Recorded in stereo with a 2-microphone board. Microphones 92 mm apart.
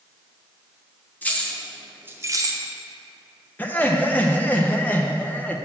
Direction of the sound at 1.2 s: 20° left (ahead or behind).